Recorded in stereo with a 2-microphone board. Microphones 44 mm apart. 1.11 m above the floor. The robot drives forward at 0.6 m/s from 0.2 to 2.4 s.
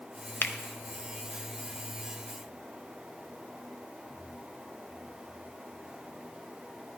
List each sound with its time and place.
0.4 s a finger snap: 45° left (ahead or behind), 0.7 m